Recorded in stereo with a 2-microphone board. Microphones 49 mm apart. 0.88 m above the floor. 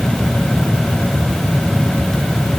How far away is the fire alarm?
I don't hear a fire alarm.